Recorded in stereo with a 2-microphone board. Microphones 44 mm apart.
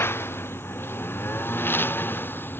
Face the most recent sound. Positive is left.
turn(degrees=55)  # may be behind; listen again after turning